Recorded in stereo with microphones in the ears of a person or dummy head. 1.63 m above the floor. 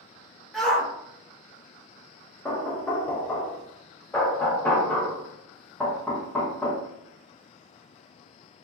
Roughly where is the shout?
Centre.